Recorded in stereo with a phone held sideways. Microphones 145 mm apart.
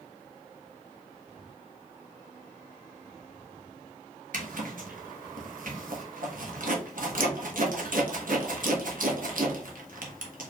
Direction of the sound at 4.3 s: 65° right (ahead or behind).